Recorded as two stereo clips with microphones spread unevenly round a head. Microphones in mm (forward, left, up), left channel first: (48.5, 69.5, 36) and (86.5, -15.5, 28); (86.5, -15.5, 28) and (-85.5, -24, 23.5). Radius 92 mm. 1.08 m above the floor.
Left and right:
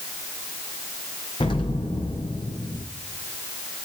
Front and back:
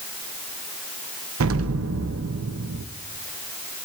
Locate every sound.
1.4 s an explosion: 175° left, 0.6 m